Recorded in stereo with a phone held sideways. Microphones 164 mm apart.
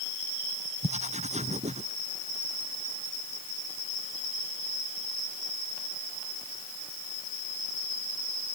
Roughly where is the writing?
Right.